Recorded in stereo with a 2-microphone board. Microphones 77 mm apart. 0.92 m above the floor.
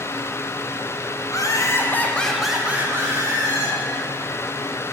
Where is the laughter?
45° left (ahead or behind), 1.1 m; by 3.8 s 50° right (ahead or behind), 1.3 m.